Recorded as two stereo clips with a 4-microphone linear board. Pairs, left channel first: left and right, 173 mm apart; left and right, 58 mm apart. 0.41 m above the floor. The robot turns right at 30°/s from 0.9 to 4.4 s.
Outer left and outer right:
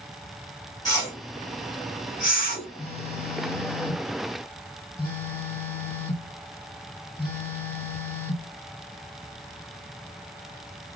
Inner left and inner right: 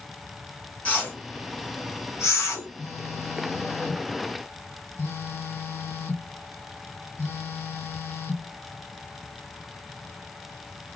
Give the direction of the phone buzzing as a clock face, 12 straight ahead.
10 o'clock.